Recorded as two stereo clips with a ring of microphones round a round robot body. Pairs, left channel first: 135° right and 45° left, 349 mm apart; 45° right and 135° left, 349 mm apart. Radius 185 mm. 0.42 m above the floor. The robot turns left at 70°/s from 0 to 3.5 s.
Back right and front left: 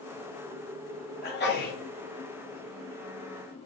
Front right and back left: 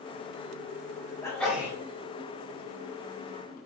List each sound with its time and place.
1.2 s a sneeze: 115° right, 1.1 m; by 1.8 s 155° right, 1.1 m